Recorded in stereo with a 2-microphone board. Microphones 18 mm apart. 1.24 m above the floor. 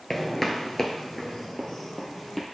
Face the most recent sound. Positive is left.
turn(degrees=15)  # may be behind; listen again after turning